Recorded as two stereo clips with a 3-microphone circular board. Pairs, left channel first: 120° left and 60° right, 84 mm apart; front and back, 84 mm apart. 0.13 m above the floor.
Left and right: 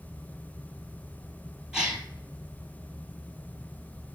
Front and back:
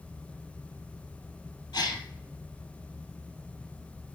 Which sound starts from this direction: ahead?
A gasp, at 1.7 s.